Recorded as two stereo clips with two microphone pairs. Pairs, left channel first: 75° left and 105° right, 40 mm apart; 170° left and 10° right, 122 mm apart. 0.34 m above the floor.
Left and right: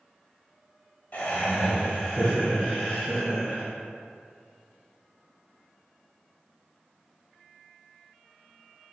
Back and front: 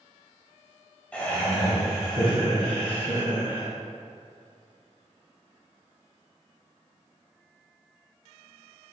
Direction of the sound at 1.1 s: 95° left.